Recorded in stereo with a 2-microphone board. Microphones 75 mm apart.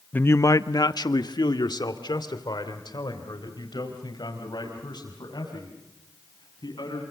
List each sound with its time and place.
0.1 s a man speaking: 20° left (ahead or behind), 0.6 m; by 7.0 s 65° left (ahead or behind), 7 m